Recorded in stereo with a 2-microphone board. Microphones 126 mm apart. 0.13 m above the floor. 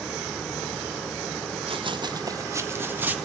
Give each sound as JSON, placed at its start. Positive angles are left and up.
{"t": 1.7, "sound": "running footsteps", "side_deg": -50, "distance_m": 1.0}